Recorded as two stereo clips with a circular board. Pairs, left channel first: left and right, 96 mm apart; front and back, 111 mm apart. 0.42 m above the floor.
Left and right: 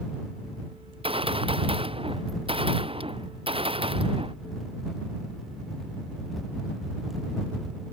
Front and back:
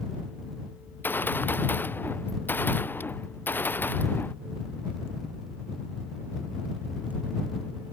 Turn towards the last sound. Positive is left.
turn(degrees=-70)